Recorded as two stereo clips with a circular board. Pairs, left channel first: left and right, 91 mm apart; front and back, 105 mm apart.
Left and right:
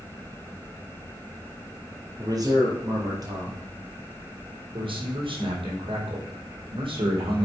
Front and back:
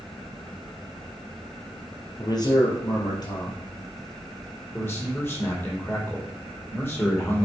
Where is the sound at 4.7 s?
65° right, 4.5 m.